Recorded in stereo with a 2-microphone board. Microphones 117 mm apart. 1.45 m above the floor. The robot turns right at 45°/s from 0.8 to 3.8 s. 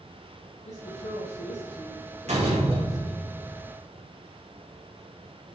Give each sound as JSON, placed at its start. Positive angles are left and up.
{"t": 0.7, "sound": "a woman speaking", "azimuth_deg": 85, "distance_m": 1.2}
{"t": 2.3, "sound": "a door slam", "azimuth_deg": -80, "distance_m": 2.5}